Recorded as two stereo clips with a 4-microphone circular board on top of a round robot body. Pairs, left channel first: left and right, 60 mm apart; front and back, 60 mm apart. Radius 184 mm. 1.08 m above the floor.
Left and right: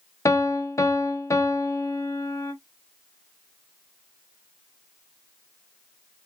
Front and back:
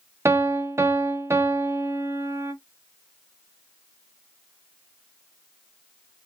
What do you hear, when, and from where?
0.2 s a piano: 130° left, 0.7 m